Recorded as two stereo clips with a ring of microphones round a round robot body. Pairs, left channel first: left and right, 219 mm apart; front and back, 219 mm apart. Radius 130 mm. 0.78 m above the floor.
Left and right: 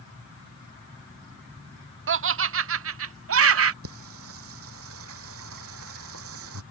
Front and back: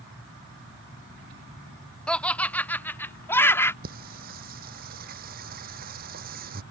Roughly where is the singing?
Behind right.